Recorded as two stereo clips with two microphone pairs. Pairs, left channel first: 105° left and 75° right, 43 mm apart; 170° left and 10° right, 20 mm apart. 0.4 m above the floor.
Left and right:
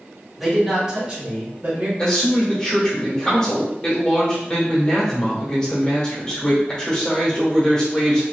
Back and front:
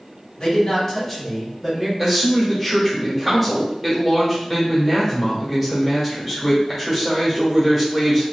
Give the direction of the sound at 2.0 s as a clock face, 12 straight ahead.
10 o'clock.